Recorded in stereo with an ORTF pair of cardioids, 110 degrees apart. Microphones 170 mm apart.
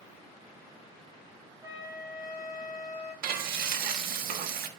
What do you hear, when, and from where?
1.6 s a flute: 20° right, 5.5 m
3.2 s frying: 60° right, 1.7 m